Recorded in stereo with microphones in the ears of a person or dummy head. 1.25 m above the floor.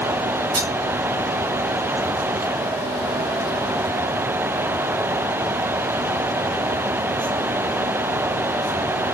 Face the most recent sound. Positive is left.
turn(degrees=-20)  # may be behind; listen again after turning